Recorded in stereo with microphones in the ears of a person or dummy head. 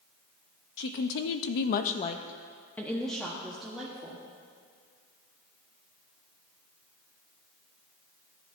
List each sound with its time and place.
0.8 s a woman speaking: 55° left (ahead or behind), 0.7 m; by 4.2 s 5° right (ahead or behind), 1.5 m